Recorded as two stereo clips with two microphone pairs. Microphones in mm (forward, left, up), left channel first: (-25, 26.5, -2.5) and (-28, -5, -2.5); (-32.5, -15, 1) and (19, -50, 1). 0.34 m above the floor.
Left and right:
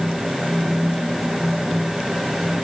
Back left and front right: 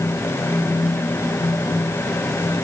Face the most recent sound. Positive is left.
No sound to turn to.